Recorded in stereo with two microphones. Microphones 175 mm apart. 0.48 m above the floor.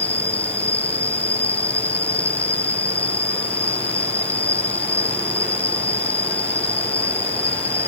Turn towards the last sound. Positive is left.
turn(degrees=10)  # may be behind; listen again after turning